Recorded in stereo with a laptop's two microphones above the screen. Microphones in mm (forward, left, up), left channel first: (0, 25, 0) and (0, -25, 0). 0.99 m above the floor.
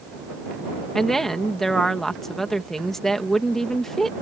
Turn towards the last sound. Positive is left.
turn(degrees=5)  # may be behind; listen again after turning